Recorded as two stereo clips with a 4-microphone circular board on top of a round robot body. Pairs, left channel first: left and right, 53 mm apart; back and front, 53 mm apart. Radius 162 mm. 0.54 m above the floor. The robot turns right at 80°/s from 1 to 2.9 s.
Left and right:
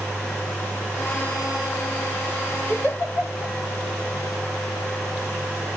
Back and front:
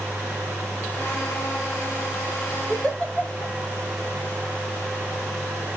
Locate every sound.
2.7 s a giggle: 90° left, 3 m; by 3.5 s 105° left, 3 m